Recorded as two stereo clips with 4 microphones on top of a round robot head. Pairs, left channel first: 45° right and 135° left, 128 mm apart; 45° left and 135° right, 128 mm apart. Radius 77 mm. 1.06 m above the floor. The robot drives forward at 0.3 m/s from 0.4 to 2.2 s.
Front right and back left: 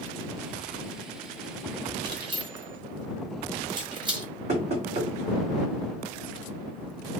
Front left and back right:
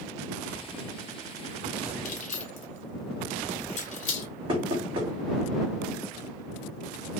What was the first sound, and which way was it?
Keys jangling, 75° left.